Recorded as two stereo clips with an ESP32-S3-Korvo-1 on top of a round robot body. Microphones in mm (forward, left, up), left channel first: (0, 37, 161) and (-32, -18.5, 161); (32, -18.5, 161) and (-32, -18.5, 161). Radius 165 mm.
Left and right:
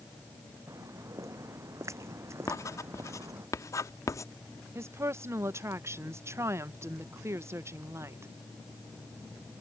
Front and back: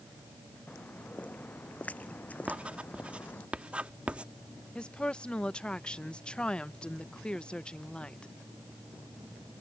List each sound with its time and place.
0.7 s footsteps: 70° right; by 3.5 s 65° right
2.5 s writing: 105° left
4.8 s a woman speaking: 75° right